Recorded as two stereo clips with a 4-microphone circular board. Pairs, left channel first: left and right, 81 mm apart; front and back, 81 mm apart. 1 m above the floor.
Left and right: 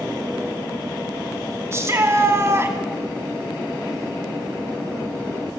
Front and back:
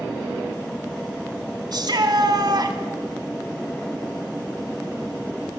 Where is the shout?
145° right, 2 m.